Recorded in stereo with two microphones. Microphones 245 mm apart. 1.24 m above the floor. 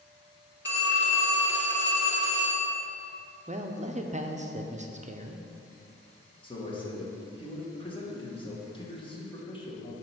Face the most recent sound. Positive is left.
turn(degrees=20)  # may be behind; listen again after turning